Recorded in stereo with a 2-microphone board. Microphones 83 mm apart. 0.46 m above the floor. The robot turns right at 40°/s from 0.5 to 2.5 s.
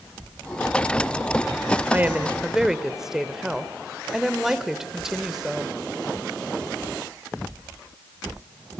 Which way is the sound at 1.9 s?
25° right (ahead or behind).